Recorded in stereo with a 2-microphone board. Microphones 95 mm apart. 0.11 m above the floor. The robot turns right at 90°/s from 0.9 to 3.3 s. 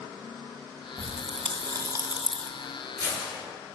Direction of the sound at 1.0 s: 60° right (ahead or behind).